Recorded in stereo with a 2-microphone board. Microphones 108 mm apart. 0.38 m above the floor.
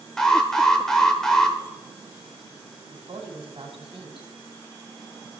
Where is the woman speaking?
55° right (ahead or behind), 2 m.